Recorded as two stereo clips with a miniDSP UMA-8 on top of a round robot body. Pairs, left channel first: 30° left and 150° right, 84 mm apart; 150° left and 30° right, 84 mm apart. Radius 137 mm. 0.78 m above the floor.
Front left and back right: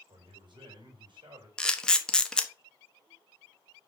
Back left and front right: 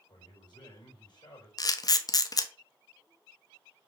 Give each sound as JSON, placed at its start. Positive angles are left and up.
{"t": 0.1, "sound": "a man speaking", "azimuth_deg": -175, "distance_m": 4.5}
{"t": 1.6, "sound": "a camera shutter", "azimuth_deg": 110, "distance_m": 1.1}